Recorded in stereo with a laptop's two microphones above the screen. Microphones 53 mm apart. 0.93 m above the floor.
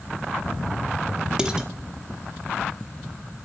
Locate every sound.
1.4 s dishes clattering: 15° right (ahead or behind), 1.0 m